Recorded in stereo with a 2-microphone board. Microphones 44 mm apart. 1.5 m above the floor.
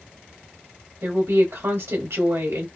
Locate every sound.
1.0 s a woman speaking: 80° right, 1.0 m